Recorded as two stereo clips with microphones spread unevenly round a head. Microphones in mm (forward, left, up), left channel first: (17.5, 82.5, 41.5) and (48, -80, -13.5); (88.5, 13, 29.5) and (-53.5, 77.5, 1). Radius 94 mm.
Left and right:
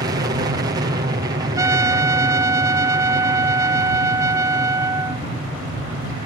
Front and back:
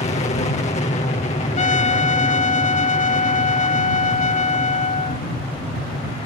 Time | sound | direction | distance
0.0 | an aircraft | 65° right | ?
1.6 | a trumpet | straight ahead | ?